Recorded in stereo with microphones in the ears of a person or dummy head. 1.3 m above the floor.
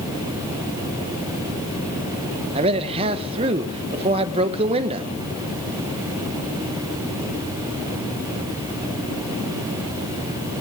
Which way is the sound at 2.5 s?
35° right (ahead or behind).